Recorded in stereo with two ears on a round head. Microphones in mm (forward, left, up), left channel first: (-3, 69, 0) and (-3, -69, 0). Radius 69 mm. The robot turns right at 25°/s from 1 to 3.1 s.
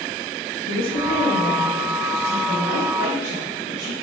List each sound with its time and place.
0.7 s a woman speaking: 65° left, 1.0 m; by 3.9 s 120° left, 1.0 m